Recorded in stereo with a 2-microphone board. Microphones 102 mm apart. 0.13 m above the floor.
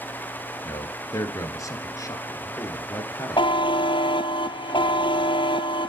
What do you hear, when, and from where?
0.7 s a man speaking: 35° left (ahead or behind), 1.6 m
3.4 s a buzzer: 55° left (ahead or behind), 0.6 m